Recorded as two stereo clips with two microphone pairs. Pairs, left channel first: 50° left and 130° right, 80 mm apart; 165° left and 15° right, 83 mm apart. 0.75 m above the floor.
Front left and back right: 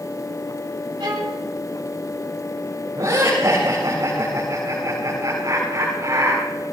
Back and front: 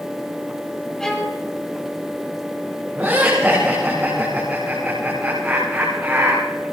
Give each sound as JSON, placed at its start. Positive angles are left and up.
{"t": 1.0, "sound": "a violin", "azimuth_deg": -110, "distance_m": 2.5}
{"t": 3.0, "sound": "laughter", "azimuth_deg": -80, "distance_m": 8.5}